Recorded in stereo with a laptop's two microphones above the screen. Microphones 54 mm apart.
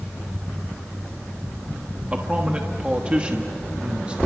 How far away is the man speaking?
About 1.2 m.